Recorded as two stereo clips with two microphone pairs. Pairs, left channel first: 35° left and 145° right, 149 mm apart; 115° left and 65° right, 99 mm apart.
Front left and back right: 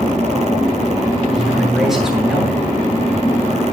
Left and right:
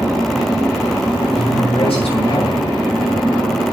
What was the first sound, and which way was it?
A man speaking, 125° left.